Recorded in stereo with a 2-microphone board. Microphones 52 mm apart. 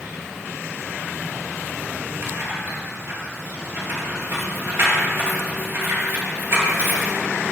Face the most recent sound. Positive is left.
turn(degrees=-50)  # may be behind; listen again after turning